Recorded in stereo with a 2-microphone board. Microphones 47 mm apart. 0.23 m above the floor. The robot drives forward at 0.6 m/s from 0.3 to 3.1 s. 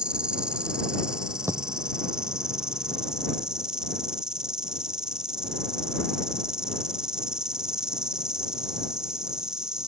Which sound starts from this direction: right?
A dropped coin, at 1.5 s.